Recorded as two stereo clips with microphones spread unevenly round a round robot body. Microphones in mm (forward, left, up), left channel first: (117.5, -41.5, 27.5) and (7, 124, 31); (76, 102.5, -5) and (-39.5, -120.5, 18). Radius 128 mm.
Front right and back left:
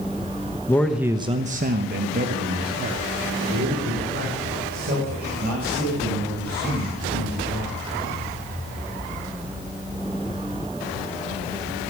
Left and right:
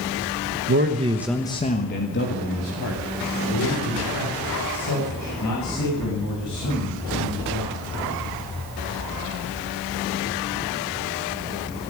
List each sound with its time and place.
0.7 s a man speaking: 125° right, 1.1 m; by 7.8 s 85° left, 9 m